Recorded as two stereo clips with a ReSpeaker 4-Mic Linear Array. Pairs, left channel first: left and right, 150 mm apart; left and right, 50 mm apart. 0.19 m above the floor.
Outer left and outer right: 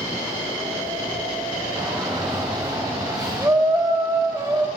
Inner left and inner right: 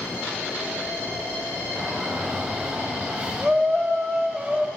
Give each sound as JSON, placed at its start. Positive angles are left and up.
{"t": 1.8, "sound": "a shout", "side_deg": -5, "distance_m": 2.5}